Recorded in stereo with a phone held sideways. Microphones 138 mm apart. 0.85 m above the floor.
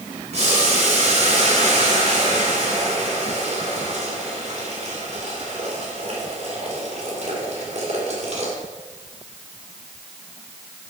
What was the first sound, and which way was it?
Boiling, 55° right (ahead or behind).